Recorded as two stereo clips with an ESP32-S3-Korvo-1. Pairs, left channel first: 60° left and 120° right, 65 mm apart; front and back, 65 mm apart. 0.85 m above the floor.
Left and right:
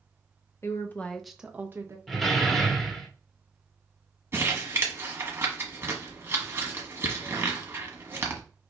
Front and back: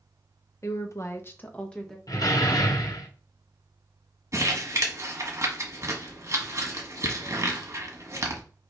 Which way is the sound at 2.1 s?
25° right.